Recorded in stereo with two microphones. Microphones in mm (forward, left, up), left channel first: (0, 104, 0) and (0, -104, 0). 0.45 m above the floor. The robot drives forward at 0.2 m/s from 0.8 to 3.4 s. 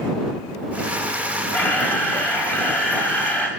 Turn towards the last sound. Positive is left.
turn(degrees=5)  # may be behind; listen again after turning